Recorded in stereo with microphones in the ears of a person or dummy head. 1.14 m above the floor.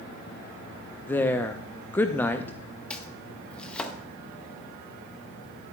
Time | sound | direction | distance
1.1 | a woman speaking | 5° left (ahead or behind) | 0.6 m
2.9 | chopping | 10° left (ahead or behind) | 0.7 m